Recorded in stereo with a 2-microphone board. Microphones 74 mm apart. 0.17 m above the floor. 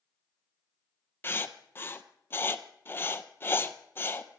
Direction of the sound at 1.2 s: 30° left (ahead or behind).